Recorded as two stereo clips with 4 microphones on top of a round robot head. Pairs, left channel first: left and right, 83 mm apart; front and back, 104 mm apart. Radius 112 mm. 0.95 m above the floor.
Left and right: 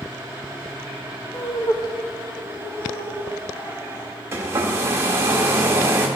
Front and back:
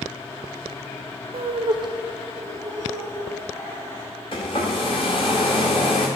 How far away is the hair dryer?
About 0.6 m.